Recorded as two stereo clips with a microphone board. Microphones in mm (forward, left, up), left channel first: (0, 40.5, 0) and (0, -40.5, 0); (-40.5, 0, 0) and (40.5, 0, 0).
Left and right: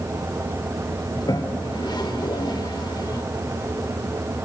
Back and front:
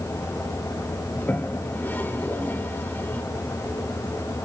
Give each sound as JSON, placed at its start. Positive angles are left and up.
{"t": 1.1, "sound": "a toilet flushing", "azimuth_deg": 115, "distance_m": 1.4}